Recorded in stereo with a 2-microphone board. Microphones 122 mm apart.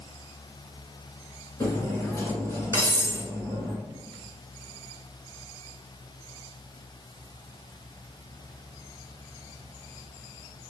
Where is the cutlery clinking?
25° left (ahead or behind), 1.3 m.